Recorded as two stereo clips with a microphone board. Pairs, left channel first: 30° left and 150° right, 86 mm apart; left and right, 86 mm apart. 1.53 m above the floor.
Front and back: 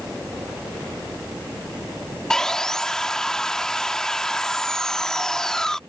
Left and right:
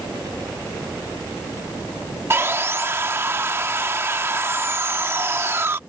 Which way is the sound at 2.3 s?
50° right.